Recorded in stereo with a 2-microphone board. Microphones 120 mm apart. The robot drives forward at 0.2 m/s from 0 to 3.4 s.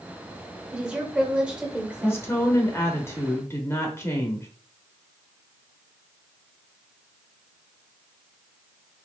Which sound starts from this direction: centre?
A woman speaking, at 0.7 s.